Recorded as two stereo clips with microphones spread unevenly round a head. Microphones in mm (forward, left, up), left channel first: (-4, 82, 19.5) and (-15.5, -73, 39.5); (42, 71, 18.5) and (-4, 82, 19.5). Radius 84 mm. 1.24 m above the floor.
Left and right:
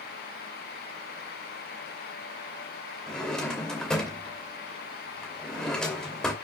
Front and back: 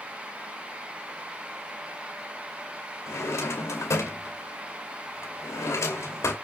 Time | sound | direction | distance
3.1 | a drawer | straight ahead | 2.5 m